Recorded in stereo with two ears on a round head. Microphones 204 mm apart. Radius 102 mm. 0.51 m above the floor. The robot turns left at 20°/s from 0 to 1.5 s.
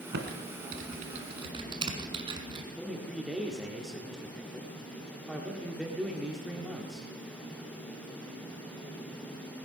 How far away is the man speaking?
About 1.5 m.